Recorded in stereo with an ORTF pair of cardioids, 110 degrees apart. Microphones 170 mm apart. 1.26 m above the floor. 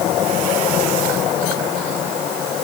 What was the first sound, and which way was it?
Only background noise.